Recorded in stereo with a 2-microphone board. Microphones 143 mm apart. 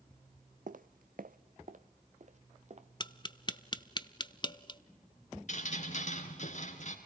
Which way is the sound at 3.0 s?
30° left (ahead or behind).